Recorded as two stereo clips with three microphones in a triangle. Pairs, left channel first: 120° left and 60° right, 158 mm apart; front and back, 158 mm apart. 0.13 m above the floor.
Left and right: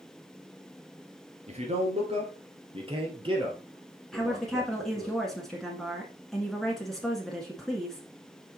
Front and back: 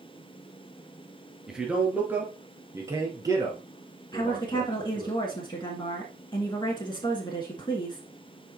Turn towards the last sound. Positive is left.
turn(degrees=35)